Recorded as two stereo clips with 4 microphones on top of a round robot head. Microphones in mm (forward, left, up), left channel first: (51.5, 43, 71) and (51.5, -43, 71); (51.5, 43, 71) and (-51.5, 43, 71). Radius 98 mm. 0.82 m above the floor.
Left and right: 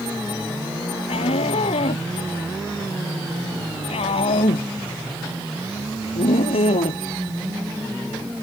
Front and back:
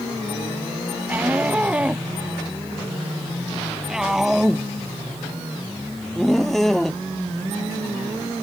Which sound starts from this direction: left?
A shout, at 1.1 s.